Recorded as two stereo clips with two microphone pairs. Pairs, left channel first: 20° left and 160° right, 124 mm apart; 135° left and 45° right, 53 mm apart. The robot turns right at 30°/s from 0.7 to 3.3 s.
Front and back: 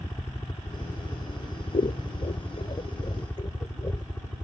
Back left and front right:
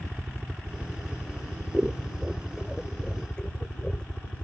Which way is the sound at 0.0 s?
10° left.